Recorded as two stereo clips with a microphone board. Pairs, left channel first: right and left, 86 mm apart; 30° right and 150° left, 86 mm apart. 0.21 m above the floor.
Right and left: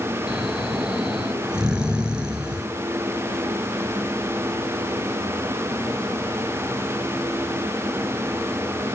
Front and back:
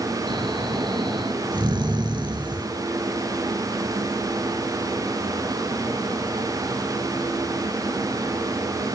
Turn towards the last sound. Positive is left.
turn(degrees=170)